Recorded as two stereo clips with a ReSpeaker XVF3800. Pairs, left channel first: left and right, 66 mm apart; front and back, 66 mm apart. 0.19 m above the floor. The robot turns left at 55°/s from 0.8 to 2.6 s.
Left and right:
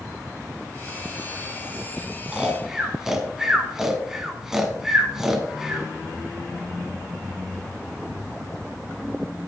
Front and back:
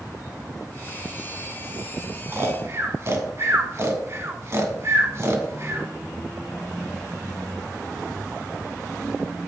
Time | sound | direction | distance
2.3 | snoring | 155° right | 1.3 m